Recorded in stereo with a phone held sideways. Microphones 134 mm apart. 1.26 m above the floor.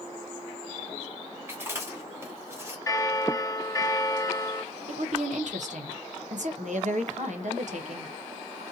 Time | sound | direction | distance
1.5 | chewing | 20° right (ahead or behind) | 2 m
2.9 | a bell | 25° left (ahead or behind) | 0.8 m
4.9 | a woman speaking | 65° right (ahead or behind) | 1.0 m